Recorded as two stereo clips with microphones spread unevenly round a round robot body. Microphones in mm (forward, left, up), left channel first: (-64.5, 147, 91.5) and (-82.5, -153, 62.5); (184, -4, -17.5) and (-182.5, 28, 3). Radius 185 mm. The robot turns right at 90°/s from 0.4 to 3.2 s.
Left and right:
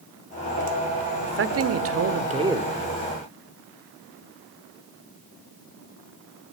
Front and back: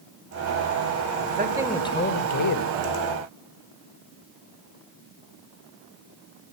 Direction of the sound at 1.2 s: 135° right.